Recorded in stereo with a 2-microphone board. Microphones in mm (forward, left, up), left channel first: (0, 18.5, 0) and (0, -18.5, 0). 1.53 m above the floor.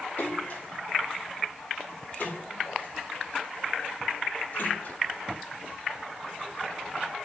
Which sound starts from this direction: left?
A splash, at 0.2 s.